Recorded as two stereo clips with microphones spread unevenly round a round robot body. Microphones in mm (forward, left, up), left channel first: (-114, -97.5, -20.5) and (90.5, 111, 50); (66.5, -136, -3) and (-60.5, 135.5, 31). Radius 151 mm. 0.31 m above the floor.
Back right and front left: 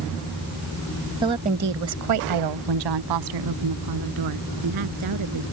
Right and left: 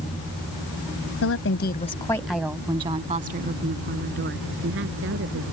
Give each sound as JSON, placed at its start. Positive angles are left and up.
{"t": 1.2, "sound": "a woman speaking", "azimuth_deg": -40}